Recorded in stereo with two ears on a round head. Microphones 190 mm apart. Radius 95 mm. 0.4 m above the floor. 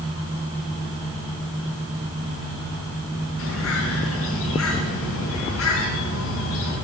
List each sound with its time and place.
3.4 s a bird: 75° left (ahead or behind), 4 m